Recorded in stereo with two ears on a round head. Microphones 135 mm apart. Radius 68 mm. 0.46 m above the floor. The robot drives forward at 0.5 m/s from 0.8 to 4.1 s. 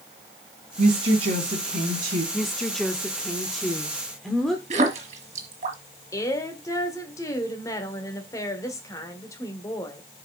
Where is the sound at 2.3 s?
Centre (ahead or behind), 0.8 m.